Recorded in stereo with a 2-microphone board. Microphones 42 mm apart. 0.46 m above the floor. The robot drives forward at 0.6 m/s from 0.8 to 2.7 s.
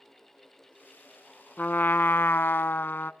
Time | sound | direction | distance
1.6 | a trumpet | 45° left (ahead or behind) | 0.7 m